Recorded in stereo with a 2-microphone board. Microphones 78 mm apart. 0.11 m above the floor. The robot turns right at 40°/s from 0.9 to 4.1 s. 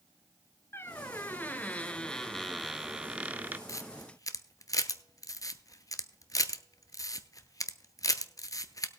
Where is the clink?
I don't hear a clink.